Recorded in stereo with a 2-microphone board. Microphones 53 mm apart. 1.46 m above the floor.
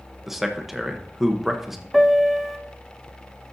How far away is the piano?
About 0.8 m.